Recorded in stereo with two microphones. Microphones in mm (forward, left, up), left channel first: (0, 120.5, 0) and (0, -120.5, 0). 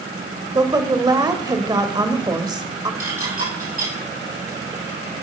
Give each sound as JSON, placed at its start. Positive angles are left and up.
{"t": 0.6, "sound": "a woman speaking", "side_deg": -15, "distance_m": 0.9}
{"t": 3.0, "sound": "dishes clattering", "side_deg": -35, "distance_m": 6.0}